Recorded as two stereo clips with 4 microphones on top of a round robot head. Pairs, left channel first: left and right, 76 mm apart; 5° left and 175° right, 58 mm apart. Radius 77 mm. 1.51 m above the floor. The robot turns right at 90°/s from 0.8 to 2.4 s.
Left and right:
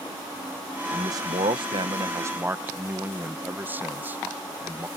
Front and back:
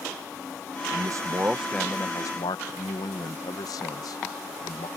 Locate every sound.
0.9 s a man speaking: 155° right; by 4.9 s 25° right